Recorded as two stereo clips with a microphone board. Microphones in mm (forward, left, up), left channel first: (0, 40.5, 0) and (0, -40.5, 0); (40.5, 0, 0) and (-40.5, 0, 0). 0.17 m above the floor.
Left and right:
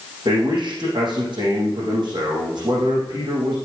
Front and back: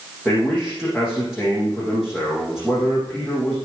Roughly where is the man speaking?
Right.